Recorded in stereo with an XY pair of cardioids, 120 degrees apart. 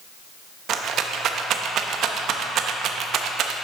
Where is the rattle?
60° right, 0.7 m.